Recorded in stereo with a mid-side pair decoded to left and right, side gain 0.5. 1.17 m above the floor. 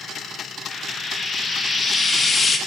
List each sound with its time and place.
0.7 s frying: 30° left, 1.4 m